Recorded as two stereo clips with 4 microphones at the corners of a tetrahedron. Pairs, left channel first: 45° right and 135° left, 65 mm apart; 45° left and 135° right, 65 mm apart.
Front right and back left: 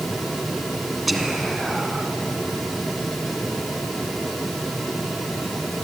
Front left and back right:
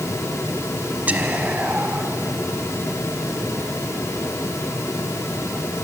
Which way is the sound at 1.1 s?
140° right.